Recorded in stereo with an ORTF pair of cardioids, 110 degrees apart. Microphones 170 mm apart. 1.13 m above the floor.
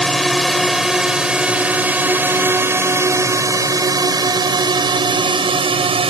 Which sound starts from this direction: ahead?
A drone, at 0.0 s.